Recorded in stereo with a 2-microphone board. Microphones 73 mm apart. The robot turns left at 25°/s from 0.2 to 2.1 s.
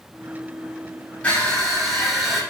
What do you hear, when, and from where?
1.2 s crushing: 20° left (ahead or behind), 5.5 m; by 2.4 s 5° right (ahead or behind), 5.5 m